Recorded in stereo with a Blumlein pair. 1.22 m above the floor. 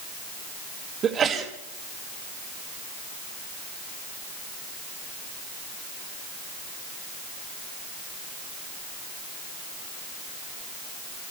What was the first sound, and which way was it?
A sneeze, 25° right.